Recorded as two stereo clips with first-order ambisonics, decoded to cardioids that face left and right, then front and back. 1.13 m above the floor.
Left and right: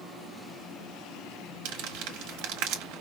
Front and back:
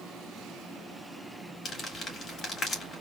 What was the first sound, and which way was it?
Crumpling, 65° right.